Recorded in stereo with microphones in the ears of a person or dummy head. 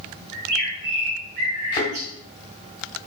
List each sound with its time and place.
0.3 s a bird: 60° right (ahead or behind), 2.5 m
1.7 s a thud: 25° left (ahead or behind), 1.5 m